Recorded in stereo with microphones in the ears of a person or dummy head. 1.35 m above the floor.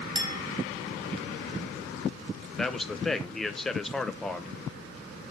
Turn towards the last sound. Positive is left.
turn(degrees=0)  # may be behind; listen again after turning